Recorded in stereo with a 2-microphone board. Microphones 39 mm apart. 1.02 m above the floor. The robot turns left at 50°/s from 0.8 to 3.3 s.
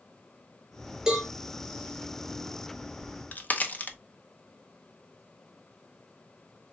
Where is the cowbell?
15° right (ahead or behind), 3 m; by 1.3 s 5° right (ahead or behind), 3 m.